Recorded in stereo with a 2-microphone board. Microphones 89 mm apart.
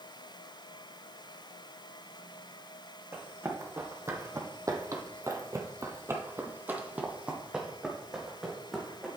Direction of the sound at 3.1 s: 30° right (ahead or behind).